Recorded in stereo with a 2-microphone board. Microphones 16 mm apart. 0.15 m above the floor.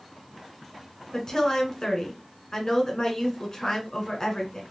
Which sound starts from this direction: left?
A woman speaking, at 1.1 s.